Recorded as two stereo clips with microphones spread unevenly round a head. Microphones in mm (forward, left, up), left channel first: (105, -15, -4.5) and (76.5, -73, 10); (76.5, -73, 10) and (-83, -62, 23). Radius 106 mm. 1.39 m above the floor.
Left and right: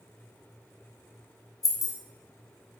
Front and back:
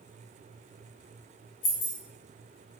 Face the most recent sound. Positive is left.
turn(degrees=25)